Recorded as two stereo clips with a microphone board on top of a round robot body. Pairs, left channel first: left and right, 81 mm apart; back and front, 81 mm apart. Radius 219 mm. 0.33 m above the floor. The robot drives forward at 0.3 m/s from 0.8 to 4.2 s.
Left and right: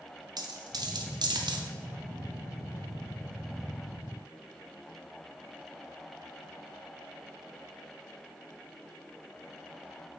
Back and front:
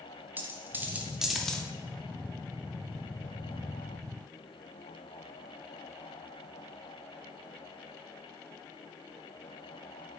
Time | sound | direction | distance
0.4 | a dropped coin | 65° right | 0.5 m